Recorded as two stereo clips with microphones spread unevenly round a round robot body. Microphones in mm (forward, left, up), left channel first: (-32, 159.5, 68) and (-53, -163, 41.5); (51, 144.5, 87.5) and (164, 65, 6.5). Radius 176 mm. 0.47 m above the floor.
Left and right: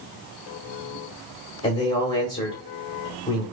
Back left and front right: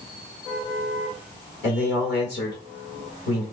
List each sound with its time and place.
1.6 s a man speaking: 145° left, 1.6 m